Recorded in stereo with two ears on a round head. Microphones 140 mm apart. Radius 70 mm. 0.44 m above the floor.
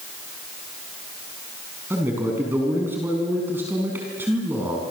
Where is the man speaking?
15° right (ahead or behind), 5 m.